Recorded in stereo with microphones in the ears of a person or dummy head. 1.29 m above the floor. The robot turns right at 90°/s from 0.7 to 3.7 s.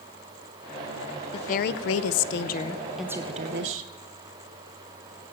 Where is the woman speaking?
30° left, 0.8 m; by 3.9 s 115° right, 0.8 m.